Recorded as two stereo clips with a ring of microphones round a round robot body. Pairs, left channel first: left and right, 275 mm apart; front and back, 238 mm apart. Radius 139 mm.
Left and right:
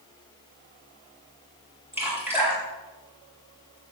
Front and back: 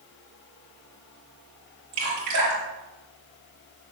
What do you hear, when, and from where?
1.9 s dripping: 175° right, 5 m